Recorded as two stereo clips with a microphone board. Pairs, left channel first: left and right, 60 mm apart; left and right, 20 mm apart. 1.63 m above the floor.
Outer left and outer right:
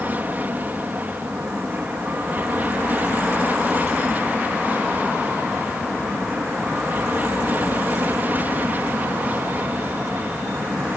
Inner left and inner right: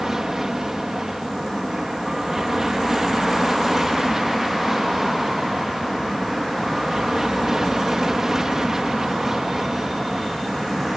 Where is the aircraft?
30° right (ahead or behind).